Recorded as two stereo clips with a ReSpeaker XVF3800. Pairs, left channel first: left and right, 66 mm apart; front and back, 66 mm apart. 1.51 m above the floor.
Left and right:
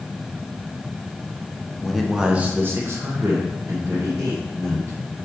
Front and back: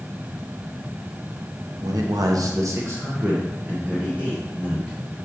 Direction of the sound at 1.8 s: 175° left.